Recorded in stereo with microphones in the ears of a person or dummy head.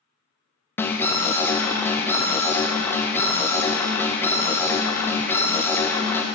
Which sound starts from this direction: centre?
An alarm, at 0.8 s.